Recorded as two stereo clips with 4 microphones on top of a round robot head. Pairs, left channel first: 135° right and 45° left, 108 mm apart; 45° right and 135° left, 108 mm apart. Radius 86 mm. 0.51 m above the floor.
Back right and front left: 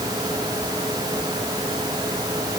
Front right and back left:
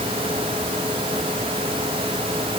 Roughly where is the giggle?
I don't hear a giggle.